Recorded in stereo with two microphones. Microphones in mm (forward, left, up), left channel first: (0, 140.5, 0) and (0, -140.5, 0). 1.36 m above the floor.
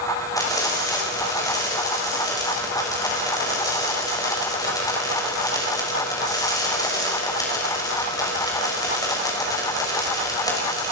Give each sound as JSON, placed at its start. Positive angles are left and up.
{"t": 0.4, "sound": "frying", "side_deg": 15, "distance_m": 6.5}